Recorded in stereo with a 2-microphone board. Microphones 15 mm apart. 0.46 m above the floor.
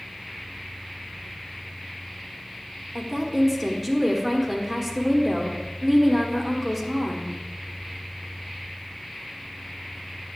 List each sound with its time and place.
3.0 s a woman speaking: centre (ahead or behind), 1.3 m